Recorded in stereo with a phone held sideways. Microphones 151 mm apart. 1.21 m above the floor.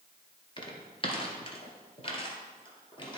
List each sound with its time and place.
0.6 s footsteps: 35° left (ahead or behind), 1.4 m; by 3.2 s 30° left (ahead or behind), 1.8 m